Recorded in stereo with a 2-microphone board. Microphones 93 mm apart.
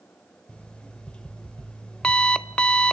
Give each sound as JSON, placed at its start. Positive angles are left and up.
{"t": 0.5, "sound": "an alarm clock", "side_deg": 10, "distance_m": 0.6}